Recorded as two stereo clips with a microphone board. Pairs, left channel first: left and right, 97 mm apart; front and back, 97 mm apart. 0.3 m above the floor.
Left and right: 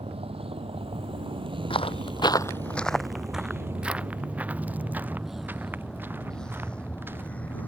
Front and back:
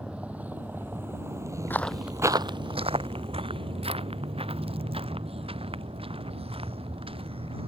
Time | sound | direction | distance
0.0 | a vehicle | 100° right | ?
1.7 | footsteps | 70° left | ?